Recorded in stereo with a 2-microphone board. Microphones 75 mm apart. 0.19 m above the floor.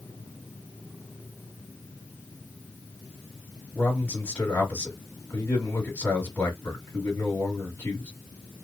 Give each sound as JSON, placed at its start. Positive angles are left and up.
{"t": 3.8, "sound": "a man speaking", "side_deg": 25, "distance_m": 1.6}